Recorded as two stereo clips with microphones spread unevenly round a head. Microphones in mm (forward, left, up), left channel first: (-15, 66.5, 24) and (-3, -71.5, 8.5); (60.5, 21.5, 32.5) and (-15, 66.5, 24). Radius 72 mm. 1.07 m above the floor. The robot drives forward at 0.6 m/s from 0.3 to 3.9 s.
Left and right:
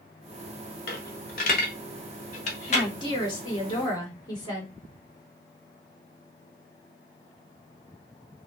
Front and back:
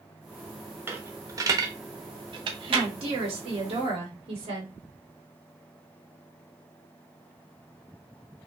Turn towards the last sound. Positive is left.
turn(degrees=155)